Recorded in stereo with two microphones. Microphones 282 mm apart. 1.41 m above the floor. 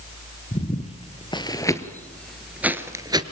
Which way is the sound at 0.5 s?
25° left (ahead or behind).